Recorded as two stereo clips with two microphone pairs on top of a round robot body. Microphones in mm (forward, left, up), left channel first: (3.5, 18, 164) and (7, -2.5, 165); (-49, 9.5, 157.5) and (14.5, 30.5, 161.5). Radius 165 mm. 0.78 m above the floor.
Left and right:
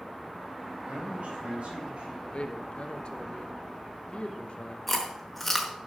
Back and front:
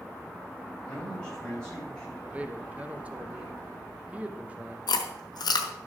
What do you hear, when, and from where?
0.8 s a man speaking: 85° right, 5.5 m
2.3 s a man speaking: 85° left, 1.4 m
4.9 s chewing: straight behind, 1.0 m